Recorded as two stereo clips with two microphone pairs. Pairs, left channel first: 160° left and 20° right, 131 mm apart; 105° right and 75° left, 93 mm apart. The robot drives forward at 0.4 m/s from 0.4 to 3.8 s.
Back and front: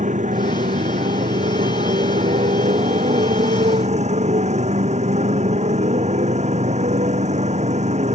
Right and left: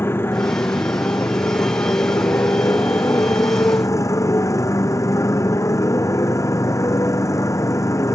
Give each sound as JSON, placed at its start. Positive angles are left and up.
{"t": 0.0, "sound": "a motorcycle", "azimuth_deg": -40}